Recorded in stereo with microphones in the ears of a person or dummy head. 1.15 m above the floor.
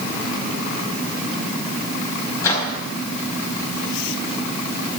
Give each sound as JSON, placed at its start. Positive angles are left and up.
{"t": 2.4, "sound": "a microwave", "side_deg": 20, "distance_m": 5.0}